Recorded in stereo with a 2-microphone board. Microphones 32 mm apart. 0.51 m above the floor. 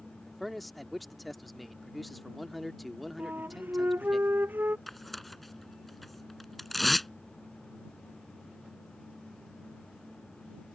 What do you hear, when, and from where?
0.3 s a man speaking: centre (ahead or behind)
3.2 s a flute: 85° right
4.9 s tearing paper: 5° left (ahead or behind)